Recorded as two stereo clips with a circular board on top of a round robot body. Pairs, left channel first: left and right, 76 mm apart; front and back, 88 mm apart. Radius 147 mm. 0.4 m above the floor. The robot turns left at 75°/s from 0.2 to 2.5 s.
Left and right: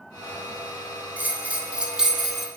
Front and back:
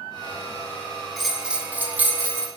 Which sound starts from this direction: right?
A bell, at 1.2 s.